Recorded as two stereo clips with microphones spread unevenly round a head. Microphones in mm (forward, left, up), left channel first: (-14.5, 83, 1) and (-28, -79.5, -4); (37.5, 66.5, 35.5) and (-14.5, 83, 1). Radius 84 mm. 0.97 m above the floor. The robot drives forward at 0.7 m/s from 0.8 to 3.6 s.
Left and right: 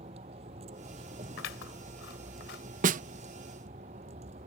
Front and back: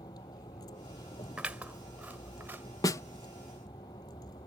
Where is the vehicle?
35° right; by 4.5 s 40° right.